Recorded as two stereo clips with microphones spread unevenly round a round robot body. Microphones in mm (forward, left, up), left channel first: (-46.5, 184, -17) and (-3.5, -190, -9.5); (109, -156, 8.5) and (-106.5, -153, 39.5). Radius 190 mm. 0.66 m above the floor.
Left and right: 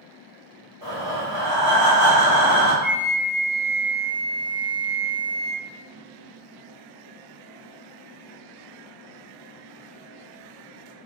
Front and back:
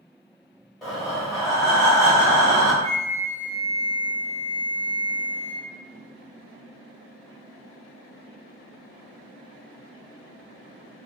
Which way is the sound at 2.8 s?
155° right.